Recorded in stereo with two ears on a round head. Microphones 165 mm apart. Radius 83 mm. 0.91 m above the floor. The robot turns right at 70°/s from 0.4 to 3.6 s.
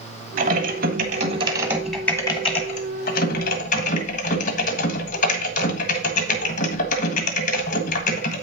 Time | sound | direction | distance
0.4 | typing on a keyboard | 105° right | 1.4 m